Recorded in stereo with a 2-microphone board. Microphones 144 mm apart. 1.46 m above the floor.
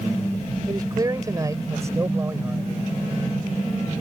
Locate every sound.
0.7 s a man speaking: 25° right (ahead or behind); by 2.7 s 15° right (ahead or behind)